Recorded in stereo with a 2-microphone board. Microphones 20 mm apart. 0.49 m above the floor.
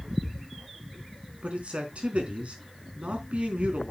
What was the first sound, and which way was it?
A man speaking, 80° right.